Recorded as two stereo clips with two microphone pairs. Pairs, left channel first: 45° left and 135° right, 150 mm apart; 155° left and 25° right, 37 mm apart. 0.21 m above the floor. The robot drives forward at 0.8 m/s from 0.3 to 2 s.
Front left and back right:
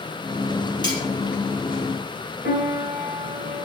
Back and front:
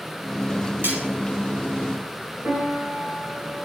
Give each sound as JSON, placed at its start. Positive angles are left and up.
{"t": 0.8, "sound": "cutlery clinking", "azimuth_deg": -15, "distance_m": 2.5}
{"t": 2.4, "sound": "a piano", "azimuth_deg": -60, "distance_m": 4.0}